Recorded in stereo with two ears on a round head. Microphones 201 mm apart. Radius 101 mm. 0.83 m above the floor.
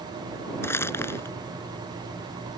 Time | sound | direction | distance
0.6 | crumpling | 10° left (ahead or behind) | ?